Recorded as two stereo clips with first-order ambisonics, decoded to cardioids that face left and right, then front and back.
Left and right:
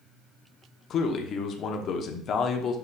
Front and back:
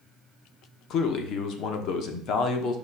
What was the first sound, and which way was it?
A man speaking, 40° left.